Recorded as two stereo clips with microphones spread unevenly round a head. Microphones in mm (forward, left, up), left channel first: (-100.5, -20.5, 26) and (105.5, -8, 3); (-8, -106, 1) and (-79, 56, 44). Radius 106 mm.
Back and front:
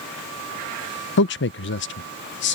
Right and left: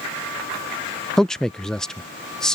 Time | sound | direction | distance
1.2 | a man speaking | 145° right | ?